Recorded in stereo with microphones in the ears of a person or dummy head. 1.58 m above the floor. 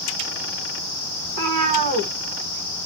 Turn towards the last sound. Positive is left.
turn(degrees=-40)  # may be behind; listen again after turning